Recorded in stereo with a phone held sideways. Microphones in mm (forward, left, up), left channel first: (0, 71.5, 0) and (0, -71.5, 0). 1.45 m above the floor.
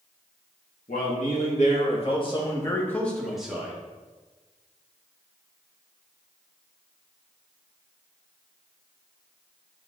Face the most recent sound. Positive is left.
turn(degrees=-10)  # may be behind; listen again after turning